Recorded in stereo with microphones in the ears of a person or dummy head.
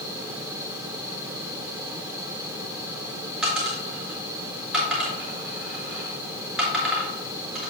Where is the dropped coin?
Centre (ahead or behind), 3.5 m.